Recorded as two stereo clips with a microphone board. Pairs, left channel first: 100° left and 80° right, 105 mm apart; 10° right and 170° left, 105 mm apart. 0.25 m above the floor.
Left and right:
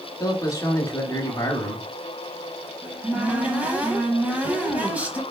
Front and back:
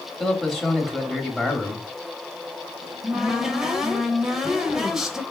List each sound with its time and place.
0.2 s a man speaking: 75° left, 1.0 m
2.8 s a cupboard door: 115° right, 0.9 m